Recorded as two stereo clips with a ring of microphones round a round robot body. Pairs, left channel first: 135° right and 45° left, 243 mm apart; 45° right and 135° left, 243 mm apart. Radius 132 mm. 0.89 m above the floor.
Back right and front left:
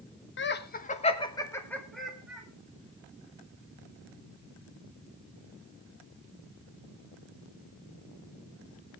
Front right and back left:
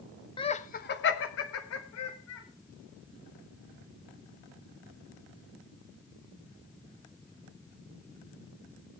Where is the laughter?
110° right, 1.3 m; by 2.5 s 40° right, 2.5 m.